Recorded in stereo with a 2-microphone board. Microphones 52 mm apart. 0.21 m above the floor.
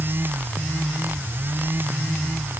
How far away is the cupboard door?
I don't hear a cupboard door.